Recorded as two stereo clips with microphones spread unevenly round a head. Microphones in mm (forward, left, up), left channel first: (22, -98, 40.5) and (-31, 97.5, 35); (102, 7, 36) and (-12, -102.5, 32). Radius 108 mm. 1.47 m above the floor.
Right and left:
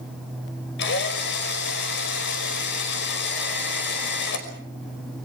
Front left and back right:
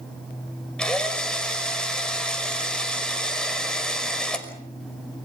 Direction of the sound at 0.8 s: 40° right.